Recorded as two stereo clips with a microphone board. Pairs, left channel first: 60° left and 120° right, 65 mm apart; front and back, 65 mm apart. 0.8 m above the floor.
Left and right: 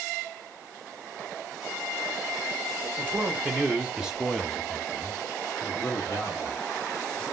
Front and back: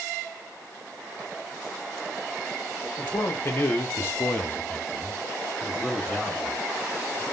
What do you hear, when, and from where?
3.0 s a man speaking: 60° right, 1.2 m; by 7.2 s 100° left, 1.5 m